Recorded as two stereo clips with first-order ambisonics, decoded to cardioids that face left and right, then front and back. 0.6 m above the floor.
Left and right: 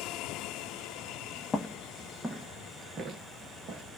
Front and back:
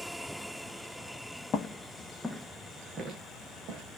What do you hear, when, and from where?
1.5 s footsteps: 25° left, 0.6 m; by 3.8 s 140° right, 1.0 m